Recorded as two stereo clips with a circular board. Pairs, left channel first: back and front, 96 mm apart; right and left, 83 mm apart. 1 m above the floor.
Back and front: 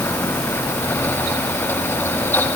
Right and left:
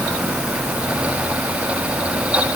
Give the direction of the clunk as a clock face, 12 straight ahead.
No clunk in this recording.